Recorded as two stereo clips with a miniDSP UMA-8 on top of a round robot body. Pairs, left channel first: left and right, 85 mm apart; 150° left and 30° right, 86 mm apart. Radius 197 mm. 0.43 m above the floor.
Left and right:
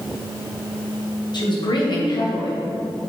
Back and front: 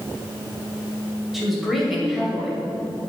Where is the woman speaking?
60° left, 3 m.